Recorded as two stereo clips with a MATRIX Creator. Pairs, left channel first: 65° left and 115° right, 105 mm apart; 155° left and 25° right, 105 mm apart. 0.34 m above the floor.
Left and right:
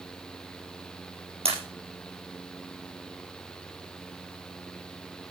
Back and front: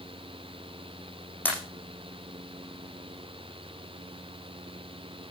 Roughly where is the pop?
Behind right.